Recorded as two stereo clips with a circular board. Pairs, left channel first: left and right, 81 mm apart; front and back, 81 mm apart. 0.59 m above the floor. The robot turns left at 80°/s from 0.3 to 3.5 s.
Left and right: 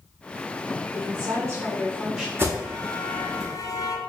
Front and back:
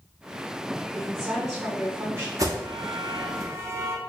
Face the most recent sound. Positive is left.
turn(degrees=125)